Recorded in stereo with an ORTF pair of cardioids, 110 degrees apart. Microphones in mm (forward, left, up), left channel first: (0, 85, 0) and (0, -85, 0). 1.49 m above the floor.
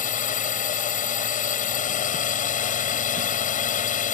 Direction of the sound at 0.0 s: 50° left.